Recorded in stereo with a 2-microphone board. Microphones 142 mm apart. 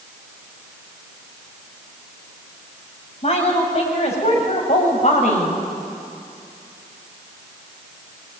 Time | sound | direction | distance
3.2 | a woman speaking | 45° left (ahead or behind) | 6.5 m